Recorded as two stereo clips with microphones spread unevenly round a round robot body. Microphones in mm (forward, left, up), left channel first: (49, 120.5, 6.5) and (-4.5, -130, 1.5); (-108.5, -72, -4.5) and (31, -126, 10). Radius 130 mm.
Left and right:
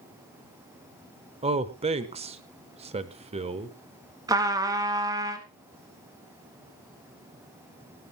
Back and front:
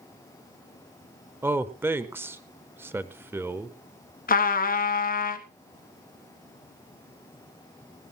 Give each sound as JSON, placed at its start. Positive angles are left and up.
{"t": 1.4, "sound": "a man speaking", "azimuth_deg": -90, "distance_m": 0.9}
{"t": 4.3, "sound": "a trumpet", "azimuth_deg": 180, "distance_m": 1.3}